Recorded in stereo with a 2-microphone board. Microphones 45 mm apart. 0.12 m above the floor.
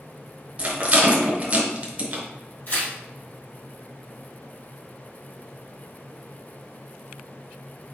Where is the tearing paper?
40° left (ahead or behind), 2.5 m.